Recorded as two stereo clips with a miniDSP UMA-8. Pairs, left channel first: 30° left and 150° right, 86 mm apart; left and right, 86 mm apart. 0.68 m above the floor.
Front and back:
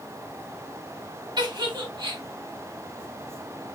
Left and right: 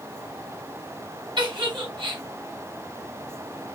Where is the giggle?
115° right, 1.5 m.